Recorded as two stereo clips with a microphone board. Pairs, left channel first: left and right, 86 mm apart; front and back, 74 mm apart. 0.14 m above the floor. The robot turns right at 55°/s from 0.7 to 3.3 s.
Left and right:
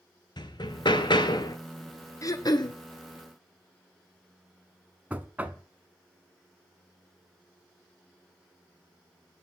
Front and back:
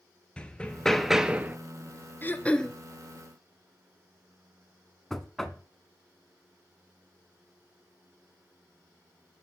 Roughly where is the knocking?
Right.